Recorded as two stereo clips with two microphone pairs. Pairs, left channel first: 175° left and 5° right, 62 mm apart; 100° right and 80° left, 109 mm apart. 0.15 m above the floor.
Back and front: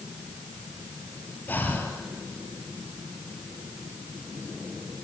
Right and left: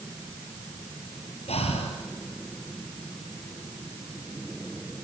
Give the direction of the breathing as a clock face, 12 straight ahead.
4 o'clock.